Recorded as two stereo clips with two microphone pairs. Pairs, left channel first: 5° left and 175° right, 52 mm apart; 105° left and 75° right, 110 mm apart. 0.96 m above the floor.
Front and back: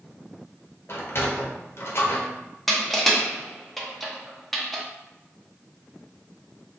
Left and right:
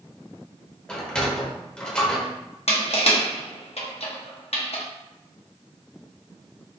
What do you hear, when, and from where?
0.9 s a sliding door: 25° left, 0.7 m
2.7 s crushing: 95° left, 0.7 m